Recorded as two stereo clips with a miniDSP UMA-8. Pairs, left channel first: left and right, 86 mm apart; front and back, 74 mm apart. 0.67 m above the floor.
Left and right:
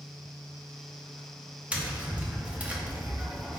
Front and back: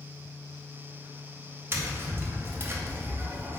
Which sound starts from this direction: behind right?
Tapping, at 1.7 s.